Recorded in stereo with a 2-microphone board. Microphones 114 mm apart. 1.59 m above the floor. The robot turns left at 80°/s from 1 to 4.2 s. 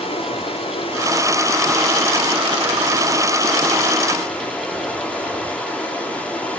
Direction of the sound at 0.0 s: 65° left.